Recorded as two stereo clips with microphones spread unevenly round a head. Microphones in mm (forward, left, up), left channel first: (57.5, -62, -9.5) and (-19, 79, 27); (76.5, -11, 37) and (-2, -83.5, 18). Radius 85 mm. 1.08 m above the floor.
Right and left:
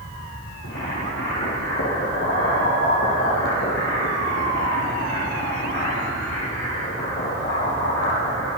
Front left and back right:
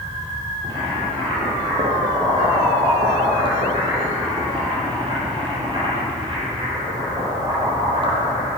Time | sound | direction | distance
0.6 | boiling | 95° right | 8.5 m